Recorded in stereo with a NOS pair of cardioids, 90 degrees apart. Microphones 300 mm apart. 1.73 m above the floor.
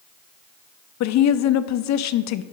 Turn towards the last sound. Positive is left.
turn(degrees=65)